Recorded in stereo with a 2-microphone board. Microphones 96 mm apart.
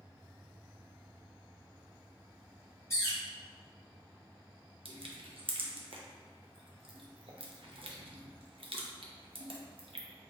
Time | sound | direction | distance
2.9 | a bird | 30° left (ahead or behind) | 1.8 m
4.8 | crushing | 65° right (ahead or behind) | 0.6 m